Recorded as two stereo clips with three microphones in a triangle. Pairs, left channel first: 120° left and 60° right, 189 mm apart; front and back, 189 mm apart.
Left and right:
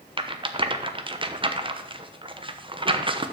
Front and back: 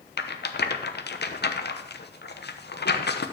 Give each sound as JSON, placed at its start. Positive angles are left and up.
{"t": 0.2, "sound": "a rattle", "azimuth_deg": 0, "distance_m": 0.9}